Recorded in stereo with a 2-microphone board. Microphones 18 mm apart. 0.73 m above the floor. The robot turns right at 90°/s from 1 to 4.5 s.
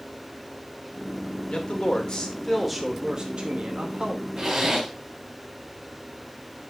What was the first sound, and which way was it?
A man speaking, 70° left.